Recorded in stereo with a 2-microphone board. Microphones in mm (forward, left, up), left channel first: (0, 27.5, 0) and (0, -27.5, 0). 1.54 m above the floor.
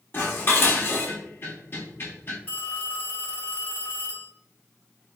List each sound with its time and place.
0.1 s dishes clattering: 45° left (ahead or behind), 1.4 m
2.5 s a phone ringing: 30° left (ahead or behind), 1.7 m